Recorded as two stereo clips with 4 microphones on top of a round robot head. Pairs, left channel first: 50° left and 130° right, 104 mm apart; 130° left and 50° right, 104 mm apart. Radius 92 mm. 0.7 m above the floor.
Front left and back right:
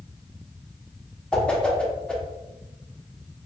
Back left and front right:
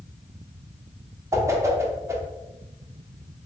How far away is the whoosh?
About 0.8 m.